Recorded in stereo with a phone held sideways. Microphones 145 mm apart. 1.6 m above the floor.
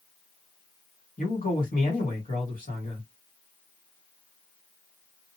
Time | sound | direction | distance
1.2 | a man speaking | 70° left (ahead or behind) | 1.9 m